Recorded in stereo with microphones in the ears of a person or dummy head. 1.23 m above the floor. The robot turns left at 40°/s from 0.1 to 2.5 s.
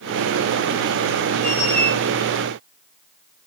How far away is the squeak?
About 6.5 m.